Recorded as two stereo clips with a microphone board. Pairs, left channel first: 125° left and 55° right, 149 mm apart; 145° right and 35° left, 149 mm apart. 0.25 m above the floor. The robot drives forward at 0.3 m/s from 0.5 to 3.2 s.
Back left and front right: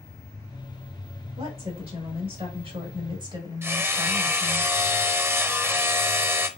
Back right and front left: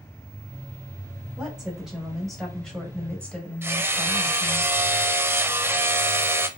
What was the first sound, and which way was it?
A woman speaking, 45° right.